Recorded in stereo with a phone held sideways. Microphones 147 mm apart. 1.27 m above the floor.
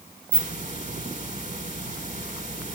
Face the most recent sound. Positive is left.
turn(degrees=-60)  # may be behind; listen again after turning